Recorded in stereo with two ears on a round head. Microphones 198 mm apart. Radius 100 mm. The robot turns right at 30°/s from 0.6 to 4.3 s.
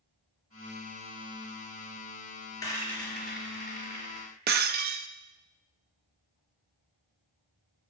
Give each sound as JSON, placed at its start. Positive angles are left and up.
{"t": 2.6, "sound": "a rattle", "side_deg": 15, "distance_m": 4.0}
{"t": 4.5, "sound": "breaking glass", "side_deg": -45, "distance_m": 0.6}